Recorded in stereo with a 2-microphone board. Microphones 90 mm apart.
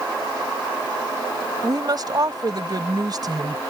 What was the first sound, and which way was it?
A woman speaking, 45° right (ahead or behind).